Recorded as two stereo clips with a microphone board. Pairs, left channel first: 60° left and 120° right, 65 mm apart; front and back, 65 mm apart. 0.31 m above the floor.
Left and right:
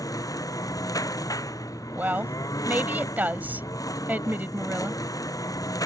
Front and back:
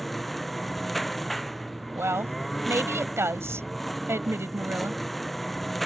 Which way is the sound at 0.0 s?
85° left.